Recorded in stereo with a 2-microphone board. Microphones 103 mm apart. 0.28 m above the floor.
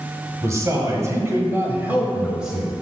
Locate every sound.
0.4 s a man speaking: 30° right (ahead or behind), 1.4 m; by 2.8 s centre (ahead or behind), 1.2 m